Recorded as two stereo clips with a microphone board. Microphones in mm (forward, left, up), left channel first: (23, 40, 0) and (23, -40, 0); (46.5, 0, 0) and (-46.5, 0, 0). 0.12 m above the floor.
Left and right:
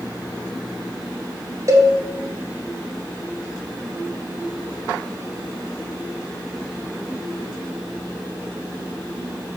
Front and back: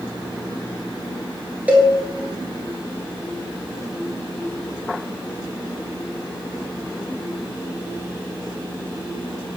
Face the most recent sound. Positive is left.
turn(degrees=-110)